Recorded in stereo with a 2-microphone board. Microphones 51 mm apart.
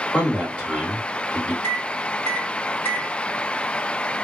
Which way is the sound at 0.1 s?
25° left (ahead or behind).